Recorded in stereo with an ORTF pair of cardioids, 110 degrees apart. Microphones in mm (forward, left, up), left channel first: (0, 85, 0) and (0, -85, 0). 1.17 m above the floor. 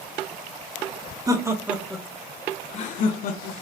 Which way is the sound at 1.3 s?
20° right.